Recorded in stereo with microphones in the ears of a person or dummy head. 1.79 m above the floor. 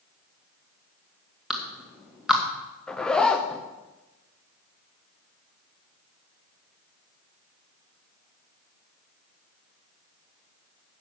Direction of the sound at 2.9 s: Centre (ahead or behind).